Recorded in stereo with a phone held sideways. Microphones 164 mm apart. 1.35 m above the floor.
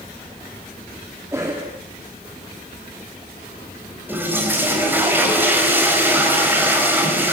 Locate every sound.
1.3 s a cough: 15° right (ahead or behind), 3 m
4.1 s a toilet flushing: 10° right (ahead or behind), 4.5 m